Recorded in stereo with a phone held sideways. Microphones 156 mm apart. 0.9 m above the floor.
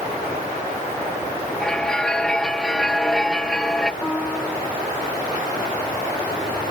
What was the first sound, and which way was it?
A bell, 5° left (ahead or behind).